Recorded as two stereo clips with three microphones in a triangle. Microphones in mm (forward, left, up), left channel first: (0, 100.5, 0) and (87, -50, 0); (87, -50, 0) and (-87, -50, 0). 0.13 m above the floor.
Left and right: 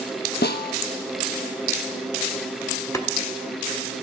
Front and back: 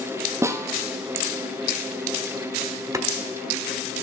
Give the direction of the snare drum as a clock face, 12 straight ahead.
8 o'clock.